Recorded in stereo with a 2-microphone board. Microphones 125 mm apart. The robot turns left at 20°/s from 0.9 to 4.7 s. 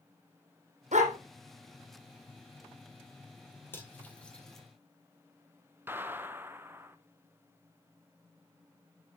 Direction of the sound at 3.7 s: 20° left (ahead or behind).